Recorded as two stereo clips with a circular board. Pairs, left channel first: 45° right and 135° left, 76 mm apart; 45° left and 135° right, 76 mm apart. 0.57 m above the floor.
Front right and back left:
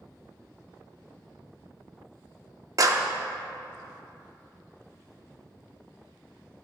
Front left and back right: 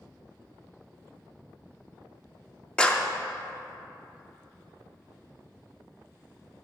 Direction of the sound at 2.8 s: 120° left.